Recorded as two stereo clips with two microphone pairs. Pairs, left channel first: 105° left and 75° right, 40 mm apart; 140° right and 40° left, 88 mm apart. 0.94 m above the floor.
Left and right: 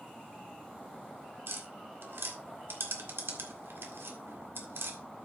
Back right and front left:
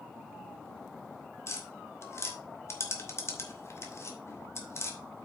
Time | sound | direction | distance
1.5 | tapping | 80° right | 1.7 m